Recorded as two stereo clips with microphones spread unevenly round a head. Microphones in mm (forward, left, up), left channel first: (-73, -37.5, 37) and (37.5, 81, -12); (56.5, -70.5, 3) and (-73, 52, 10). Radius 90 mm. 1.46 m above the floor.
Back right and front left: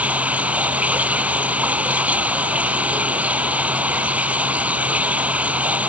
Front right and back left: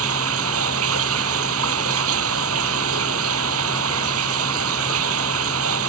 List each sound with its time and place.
0.0 s running water: 130° left